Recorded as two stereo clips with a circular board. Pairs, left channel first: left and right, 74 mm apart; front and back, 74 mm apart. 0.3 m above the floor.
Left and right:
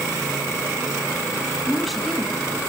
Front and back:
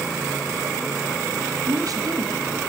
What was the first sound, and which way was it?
A woman speaking, straight behind.